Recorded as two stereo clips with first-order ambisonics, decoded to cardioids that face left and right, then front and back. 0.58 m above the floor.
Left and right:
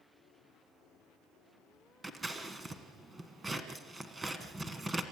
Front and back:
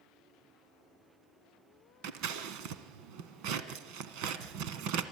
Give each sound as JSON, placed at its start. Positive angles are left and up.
{"t": 2.0, "sound": "scissors", "azimuth_deg": -165, "distance_m": 1.4}